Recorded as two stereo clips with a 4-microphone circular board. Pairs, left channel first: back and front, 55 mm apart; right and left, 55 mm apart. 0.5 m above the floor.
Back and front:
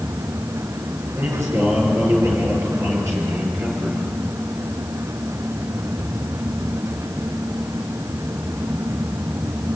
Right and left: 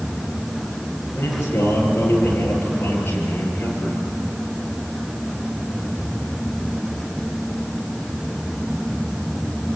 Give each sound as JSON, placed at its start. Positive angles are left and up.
{"t": 1.1, "sound": "a man speaking", "azimuth_deg": -40, "distance_m": 9.5}